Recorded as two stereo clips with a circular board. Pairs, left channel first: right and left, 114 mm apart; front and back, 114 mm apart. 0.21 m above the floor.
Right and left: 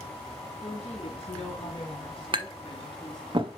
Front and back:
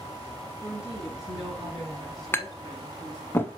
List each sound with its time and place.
0.6 s a woman speaking: 95° right, 4 m; by 3.3 s 65° right, 2 m
2.3 s tapping: 65° left, 0.9 m